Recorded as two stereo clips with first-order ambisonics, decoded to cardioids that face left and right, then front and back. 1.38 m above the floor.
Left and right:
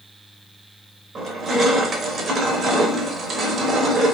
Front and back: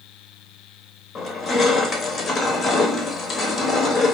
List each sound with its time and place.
1.1 s crushing: 60° right, 0.8 m